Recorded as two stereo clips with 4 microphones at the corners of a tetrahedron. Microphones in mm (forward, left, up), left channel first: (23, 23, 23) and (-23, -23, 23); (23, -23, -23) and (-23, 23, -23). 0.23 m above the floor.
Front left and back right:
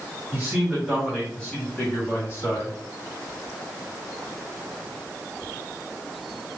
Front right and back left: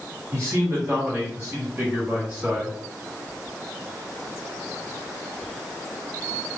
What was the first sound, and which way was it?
A man speaking, 165° left.